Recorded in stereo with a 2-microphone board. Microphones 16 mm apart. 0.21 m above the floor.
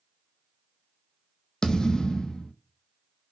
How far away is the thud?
About 0.7 m.